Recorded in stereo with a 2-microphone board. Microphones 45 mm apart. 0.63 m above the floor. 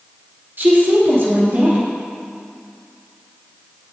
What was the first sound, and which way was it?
A woman speaking, 50° right (ahead or behind).